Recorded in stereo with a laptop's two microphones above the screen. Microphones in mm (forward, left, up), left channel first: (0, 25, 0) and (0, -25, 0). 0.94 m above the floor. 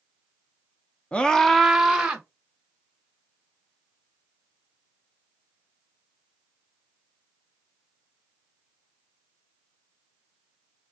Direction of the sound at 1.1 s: 25° left (ahead or behind).